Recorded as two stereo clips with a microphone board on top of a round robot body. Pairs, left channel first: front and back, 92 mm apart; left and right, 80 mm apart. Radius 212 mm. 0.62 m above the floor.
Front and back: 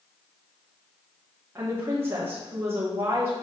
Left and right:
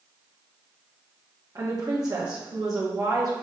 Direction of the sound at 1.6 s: 120° right.